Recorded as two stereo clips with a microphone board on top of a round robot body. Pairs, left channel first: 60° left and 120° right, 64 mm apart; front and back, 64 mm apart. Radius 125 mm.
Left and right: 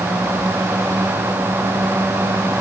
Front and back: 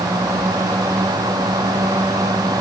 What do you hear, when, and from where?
Only background noise.